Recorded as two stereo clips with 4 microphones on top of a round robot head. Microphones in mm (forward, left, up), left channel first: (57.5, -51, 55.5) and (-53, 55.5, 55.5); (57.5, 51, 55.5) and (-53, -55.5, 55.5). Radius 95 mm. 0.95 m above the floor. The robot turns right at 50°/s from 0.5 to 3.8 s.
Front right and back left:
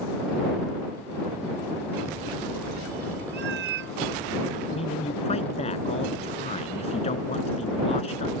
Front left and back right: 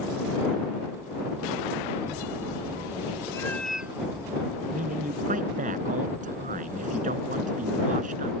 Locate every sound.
3.3 s a cat meowing: 115° left; by 4.0 s 140° left
4.7 s a man speaking: 95° right